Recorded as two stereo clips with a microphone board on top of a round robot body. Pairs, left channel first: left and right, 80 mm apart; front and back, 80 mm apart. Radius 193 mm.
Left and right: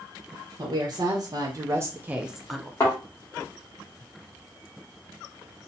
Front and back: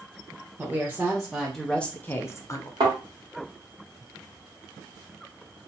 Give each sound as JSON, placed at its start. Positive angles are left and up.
{"t": 0.6, "sound": "a woman speaking", "azimuth_deg": -110, "distance_m": 1.2}
{"t": 2.8, "sound": "a thud", "azimuth_deg": 150, "distance_m": 1.5}